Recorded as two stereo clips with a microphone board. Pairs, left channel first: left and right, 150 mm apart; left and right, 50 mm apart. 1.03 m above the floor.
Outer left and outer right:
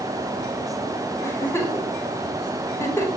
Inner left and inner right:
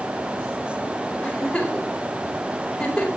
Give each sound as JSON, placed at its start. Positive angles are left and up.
{"t": 1.2, "sound": "a giggle", "side_deg": 15, "distance_m": 4.5}